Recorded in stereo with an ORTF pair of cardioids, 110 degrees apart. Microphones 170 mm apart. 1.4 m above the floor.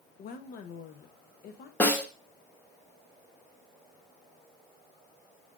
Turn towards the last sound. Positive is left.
turn(degrees=10)